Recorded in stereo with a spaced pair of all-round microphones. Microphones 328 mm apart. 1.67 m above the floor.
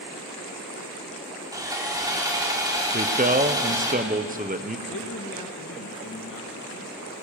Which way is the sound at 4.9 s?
75° left (ahead or behind).